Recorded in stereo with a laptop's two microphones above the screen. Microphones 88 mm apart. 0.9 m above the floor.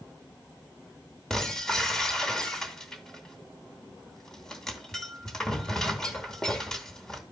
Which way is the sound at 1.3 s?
5° left (ahead or behind).